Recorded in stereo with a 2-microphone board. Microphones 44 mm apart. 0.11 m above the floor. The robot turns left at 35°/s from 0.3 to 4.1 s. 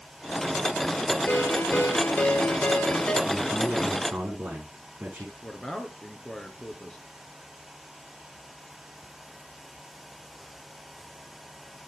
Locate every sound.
1.3 s a ringtone: 95° left, 1.7 m; by 3.1 s 30° left, 1.7 m
3.2 s a man speaking: 15° right (ahead or behind), 8 m; by 5.3 s 45° right (ahead or behind), 8 m
5.4 s a man speaking: 20° left (ahead or behind), 1.6 m